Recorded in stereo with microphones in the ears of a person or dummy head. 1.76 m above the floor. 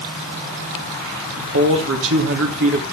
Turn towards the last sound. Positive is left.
turn(degrees=-70)  # may be behind; listen again after turning